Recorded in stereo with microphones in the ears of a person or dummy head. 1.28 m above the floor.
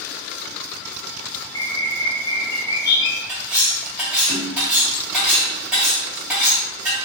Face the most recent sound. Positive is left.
turn(degrees=-5)  # may be behind; listen again after turning